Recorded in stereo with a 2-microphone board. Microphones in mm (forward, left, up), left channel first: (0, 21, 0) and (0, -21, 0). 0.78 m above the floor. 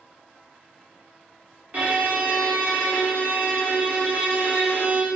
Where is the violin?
40° right (ahead or behind), 0.7 m.